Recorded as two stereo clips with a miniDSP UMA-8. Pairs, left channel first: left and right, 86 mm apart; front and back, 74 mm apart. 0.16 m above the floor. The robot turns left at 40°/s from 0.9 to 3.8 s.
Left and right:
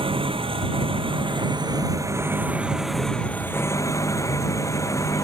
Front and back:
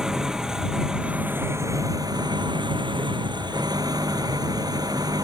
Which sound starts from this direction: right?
An engine running, at 0.0 s.